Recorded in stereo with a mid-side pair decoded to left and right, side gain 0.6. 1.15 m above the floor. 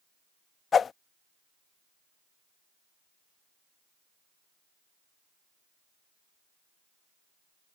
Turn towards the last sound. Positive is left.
turn(degrees=35)